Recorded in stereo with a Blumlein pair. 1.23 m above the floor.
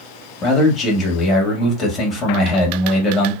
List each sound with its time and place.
0.4 s a man speaking: 20° left, 1.3 m